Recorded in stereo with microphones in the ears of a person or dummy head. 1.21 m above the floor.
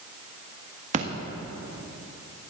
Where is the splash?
40° right (ahead or behind), 1.7 m.